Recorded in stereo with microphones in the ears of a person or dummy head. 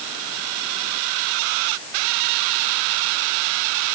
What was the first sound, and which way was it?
Only background noise.